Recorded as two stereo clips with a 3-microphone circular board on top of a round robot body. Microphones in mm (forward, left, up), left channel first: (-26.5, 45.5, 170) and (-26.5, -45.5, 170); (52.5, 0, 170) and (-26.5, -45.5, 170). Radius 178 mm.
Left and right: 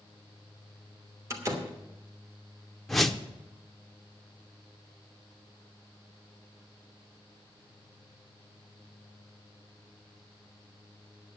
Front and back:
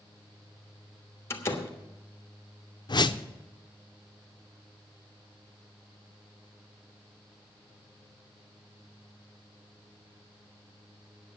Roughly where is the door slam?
Ahead right.